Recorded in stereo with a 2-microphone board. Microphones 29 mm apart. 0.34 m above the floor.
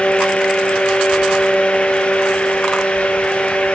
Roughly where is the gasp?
No gasp in this recording.